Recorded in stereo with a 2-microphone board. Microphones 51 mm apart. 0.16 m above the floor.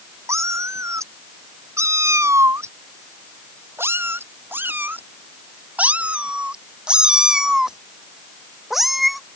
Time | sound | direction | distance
0.3 | a cat meowing | 75° right (ahead or behind) | ?